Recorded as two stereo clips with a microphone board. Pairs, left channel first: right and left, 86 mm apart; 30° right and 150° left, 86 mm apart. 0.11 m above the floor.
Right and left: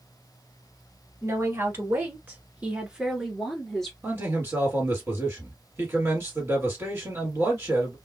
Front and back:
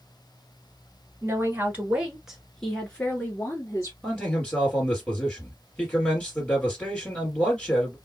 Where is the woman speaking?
115° left, 1.4 m; by 3.9 s 5° right, 1.4 m.